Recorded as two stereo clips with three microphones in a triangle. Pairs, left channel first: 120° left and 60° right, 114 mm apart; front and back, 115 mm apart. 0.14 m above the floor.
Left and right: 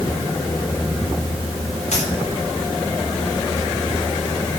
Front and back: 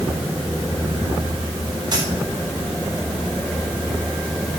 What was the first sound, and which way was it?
A dropped coin, 130° left.